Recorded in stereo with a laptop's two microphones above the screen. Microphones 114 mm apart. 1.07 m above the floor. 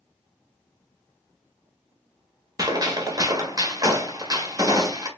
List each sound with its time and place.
2.6 s a gunshot: 35° right (ahead or behind), 0.7 m